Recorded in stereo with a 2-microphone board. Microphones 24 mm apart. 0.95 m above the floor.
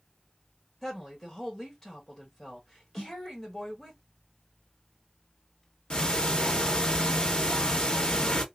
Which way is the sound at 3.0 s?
55° left (ahead or behind).